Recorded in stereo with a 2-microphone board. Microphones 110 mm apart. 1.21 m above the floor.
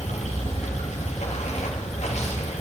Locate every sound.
0.0 s running water: 75° left (ahead or behind), 1.8 m